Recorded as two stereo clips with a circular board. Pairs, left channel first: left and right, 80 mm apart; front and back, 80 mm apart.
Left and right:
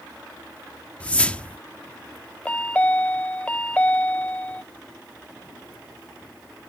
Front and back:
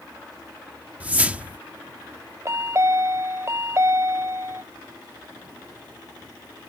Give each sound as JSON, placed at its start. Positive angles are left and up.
{"t": 1.0, "sound": "a whoosh", "azimuth_deg": 140}
{"t": 2.5, "sound": "a chime", "azimuth_deg": 155}